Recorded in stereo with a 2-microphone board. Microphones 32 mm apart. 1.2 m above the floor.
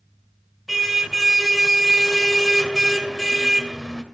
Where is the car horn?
5° right (ahead or behind), 2 m.